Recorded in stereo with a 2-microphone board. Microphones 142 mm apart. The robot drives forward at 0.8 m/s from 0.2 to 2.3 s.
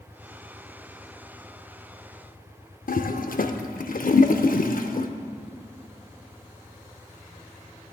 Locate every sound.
2.9 s a toilet flushing: 80° left, 0.5 m